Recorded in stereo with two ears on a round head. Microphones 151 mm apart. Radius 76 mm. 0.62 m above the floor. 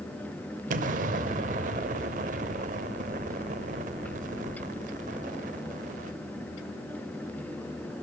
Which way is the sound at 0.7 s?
50° right (ahead or behind).